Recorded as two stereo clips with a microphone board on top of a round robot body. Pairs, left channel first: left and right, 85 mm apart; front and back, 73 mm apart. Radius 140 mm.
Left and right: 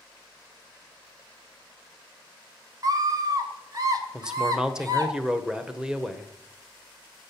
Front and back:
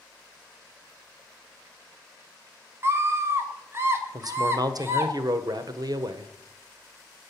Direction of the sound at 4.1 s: 170° right.